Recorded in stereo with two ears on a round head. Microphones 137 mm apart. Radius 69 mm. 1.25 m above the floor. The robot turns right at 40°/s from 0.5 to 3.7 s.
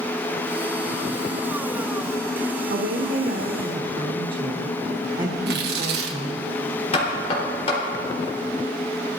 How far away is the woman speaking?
About 1.2 m.